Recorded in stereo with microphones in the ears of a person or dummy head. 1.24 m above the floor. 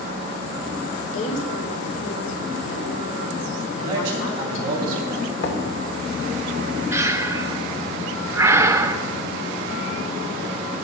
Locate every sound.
1.1 s a woman speaking: 85° left, 3.5 m
3.7 s a man speaking: 25° right (ahead or behind), 8 m
5.4 s knocking: 75° left (ahead or behind), 2 m
6.9 s breathing: 20° right (ahead or behind), 0.7 m